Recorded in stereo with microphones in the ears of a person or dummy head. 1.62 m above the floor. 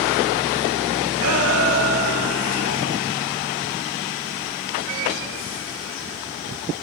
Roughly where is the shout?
Right.